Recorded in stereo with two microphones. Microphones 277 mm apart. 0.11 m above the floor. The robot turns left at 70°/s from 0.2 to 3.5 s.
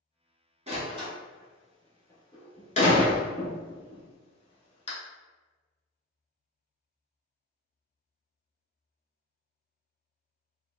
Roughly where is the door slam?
Right.